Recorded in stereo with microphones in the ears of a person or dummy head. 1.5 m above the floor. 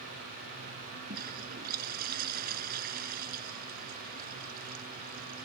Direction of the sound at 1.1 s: 50° right (ahead or behind).